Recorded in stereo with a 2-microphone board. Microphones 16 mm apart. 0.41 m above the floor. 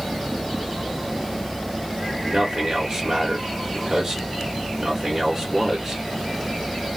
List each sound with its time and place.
2.2 s a man speaking: 45° right (ahead or behind), 1.1 m